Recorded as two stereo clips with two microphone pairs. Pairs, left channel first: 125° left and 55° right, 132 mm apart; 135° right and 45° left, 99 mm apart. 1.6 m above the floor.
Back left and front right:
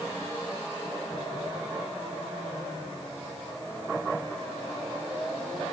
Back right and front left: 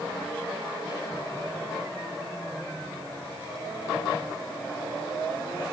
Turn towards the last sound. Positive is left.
No sound to turn to.